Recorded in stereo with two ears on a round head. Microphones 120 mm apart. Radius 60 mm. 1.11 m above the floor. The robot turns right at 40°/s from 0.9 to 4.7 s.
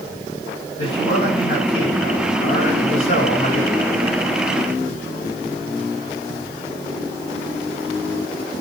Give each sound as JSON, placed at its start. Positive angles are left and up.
{"t": 0.8, "sound": "a man speaking", "azimuth_deg": 35, "distance_m": 7.5}